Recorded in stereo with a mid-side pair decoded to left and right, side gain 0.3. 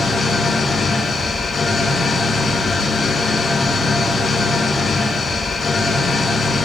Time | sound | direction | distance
0.0 | an engine running | 60° left | 9.5 m